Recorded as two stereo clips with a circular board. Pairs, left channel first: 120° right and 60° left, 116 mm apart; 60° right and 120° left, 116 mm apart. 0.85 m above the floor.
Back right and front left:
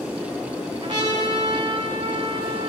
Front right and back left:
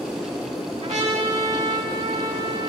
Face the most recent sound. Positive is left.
turn(degrees=110)